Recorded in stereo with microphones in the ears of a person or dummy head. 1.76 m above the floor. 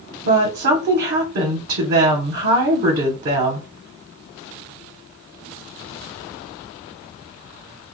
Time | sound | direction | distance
0.2 | a woman speaking | 50° right (ahead or behind) | 0.7 m